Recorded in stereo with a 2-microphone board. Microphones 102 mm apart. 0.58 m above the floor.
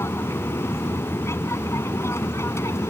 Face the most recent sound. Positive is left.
turn(degrees=25)  # may be behind; listen again after turning